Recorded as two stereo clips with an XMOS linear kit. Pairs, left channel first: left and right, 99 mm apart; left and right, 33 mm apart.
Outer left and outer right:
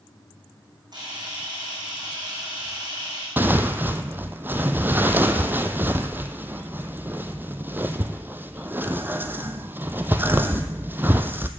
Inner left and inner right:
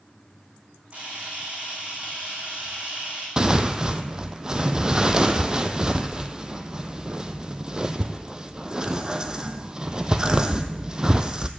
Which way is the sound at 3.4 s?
20° right (ahead or behind).